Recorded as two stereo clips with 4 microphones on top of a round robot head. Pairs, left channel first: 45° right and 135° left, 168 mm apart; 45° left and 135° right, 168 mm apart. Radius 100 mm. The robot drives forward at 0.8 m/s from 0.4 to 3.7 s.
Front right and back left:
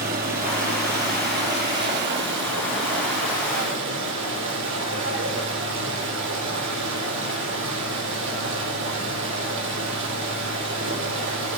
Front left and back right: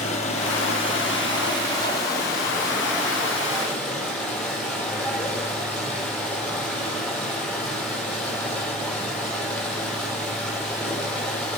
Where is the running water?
100° left, 4 m; by 11.6 s 130° left, 5 m.